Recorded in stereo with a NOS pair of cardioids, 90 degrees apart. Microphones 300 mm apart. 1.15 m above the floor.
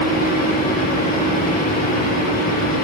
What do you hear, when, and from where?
0.0 s a fan: 30° left, 1.7 m